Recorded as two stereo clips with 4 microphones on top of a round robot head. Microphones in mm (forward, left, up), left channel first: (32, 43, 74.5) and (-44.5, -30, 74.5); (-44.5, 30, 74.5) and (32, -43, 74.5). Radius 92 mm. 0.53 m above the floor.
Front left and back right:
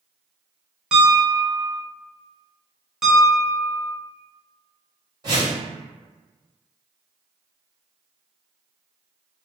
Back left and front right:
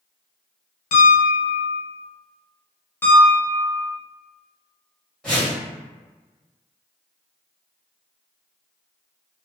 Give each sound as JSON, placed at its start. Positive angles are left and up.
{"t": 0.9, "sound": "a piano", "azimuth_deg": 140, "distance_m": 0.6}
{"t": 3.0, "sound": "a piano", "azimuth_deg": 150, "distance_m": 1.2}
{"t": 5.2, "sound": "a whoosh", "azimuth_deg": -145, "distance_m": 1.4}